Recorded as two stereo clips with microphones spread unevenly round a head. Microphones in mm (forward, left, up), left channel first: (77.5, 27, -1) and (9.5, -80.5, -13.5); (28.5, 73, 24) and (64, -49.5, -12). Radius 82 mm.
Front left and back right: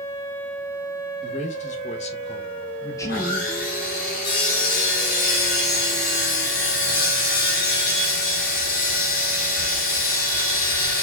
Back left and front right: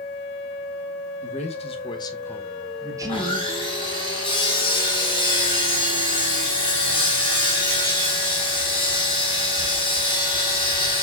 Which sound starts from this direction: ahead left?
Sawing, at 3.0 s.